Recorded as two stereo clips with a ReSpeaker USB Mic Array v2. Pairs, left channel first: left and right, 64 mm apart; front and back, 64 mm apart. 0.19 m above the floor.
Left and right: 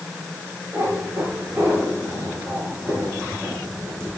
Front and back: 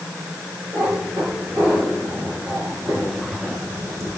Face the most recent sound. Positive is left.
turn(degrees=-140)